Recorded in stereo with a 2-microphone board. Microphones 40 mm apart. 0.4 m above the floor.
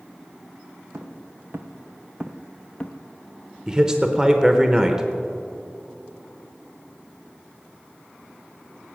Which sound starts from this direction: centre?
A man speaking, at 3.7 s.